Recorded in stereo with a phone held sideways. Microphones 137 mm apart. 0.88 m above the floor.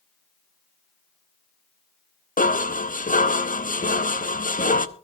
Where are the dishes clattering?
70° left (ahead or behind), 0.8 m.